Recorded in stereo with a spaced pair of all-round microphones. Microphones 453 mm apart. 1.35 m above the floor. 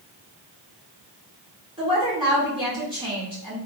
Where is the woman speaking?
10° right (ahead or behind), 1.8 m.